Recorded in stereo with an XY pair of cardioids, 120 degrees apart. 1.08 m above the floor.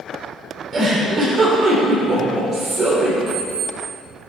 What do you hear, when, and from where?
0.7 s a giggle: 40° right, 3.5 m
3.3 s an alarm clock: 30° right, 3.5 m